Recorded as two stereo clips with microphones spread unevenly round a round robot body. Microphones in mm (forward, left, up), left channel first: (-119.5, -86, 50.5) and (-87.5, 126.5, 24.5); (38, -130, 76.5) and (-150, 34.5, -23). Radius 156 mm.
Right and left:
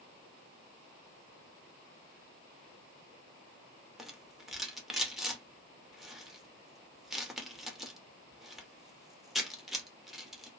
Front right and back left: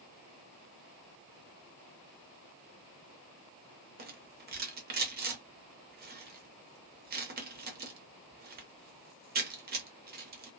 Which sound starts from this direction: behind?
A rattle, at 4.0 s.